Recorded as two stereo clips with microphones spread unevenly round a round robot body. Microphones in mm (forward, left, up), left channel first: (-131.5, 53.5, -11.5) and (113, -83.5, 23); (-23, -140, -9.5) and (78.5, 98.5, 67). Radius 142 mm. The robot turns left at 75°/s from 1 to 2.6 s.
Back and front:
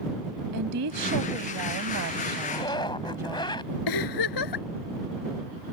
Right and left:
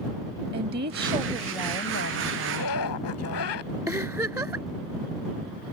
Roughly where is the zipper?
Behind right.